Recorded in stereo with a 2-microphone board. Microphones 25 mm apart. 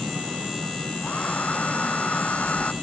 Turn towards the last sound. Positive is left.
turn(degrees=65)  # may be behind; listen again after turning